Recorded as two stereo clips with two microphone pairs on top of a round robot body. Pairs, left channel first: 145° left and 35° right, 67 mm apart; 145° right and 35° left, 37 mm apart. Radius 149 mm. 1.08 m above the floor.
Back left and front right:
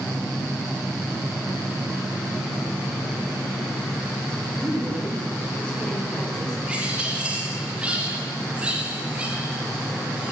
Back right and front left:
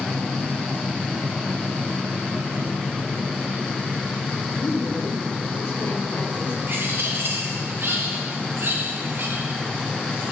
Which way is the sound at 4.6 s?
140° right.